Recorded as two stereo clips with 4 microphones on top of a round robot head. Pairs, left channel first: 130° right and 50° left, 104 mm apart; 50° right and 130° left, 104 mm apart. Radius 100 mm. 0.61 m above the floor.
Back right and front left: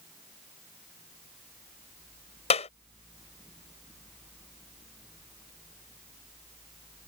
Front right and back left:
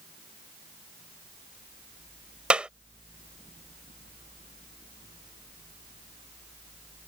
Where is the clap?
150° right.